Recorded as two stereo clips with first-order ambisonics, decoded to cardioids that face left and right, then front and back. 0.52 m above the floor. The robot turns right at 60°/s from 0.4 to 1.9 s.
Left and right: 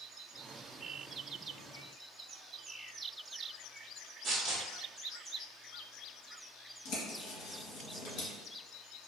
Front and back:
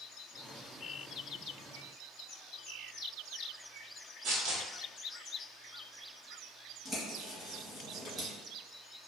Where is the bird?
105° left, 1.8 m.